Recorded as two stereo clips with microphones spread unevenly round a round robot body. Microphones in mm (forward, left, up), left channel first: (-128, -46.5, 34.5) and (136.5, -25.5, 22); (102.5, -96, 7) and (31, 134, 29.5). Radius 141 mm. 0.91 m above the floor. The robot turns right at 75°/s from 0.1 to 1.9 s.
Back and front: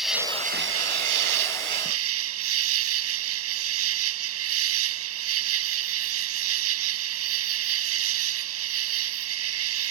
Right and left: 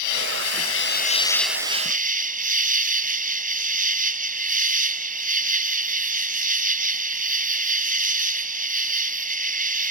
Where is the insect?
85° right; by 9.9 s 50° left.